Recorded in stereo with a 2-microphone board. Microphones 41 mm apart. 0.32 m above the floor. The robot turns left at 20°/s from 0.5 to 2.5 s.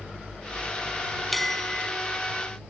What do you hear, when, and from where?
1.3 s a bell: 5° left (ahead or behind); by 1.9 s 15° left (ahead or behind)